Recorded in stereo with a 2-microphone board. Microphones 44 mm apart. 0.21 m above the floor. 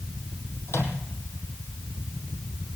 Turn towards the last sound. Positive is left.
turn(degrees=65)  # may be behind; listen again after turning